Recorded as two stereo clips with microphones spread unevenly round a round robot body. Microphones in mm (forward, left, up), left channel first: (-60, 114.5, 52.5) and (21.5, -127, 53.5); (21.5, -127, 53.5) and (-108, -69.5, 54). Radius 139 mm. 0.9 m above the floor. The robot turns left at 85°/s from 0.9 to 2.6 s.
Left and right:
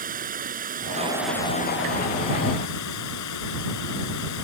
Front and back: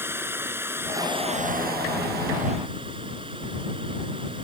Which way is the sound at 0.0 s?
130° right.